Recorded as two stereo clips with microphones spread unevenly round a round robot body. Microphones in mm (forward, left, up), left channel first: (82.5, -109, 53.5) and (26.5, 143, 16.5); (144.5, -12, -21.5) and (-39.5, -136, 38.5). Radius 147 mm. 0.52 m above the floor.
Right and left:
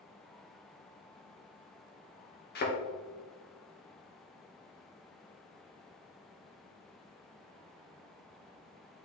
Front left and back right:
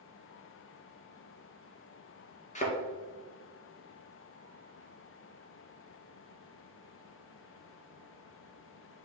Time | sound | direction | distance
2.5 | a thud | 25° right | 2.5 m